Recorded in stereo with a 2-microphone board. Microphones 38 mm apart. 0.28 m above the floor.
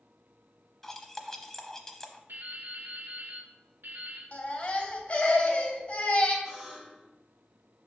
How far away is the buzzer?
About 3 m.